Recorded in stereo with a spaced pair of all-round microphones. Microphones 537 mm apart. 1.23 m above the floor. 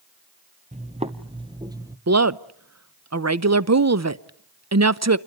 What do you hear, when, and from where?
0.7 s footsteps: 10° right (ahead or behind), 1.3 m; by 2.0 s 5° right (ahead or behind), 1.2 m
2.1 s a woman speaking: 30° right (ahead or behind), 0.7 m